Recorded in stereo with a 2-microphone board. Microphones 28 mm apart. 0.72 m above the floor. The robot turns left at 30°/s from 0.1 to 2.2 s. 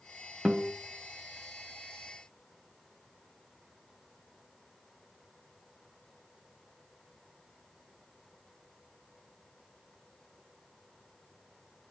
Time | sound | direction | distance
0.5 | a guitar | 15° right (ahead or behind) | 0.7 m